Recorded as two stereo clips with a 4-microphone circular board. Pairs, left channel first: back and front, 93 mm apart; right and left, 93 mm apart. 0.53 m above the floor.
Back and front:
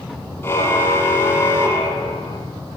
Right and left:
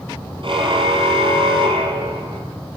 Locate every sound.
0.4 s a car horn: 115° left, 7.5 m; by 2.4 s 120° left, 9.5 m